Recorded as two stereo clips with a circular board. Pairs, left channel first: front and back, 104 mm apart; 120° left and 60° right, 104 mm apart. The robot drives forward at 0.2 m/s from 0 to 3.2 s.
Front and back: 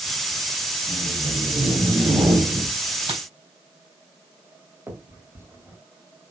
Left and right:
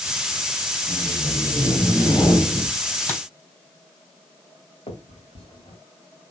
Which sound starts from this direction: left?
A finger snap, at 4.9 s.